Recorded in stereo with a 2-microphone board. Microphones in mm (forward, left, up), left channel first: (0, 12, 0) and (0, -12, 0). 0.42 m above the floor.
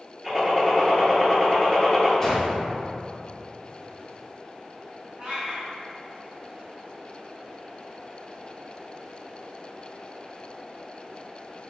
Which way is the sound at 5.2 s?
45° right (ahead or behind).